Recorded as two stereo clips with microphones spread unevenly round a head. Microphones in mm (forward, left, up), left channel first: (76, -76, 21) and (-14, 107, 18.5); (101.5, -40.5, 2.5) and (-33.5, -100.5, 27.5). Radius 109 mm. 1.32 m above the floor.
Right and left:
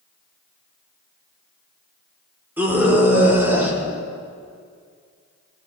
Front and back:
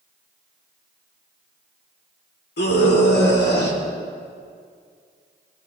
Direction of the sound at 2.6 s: 35° left.